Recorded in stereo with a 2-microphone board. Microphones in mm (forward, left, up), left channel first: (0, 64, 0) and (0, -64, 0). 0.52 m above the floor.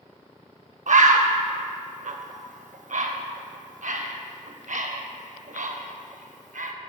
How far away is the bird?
About 0.5 m.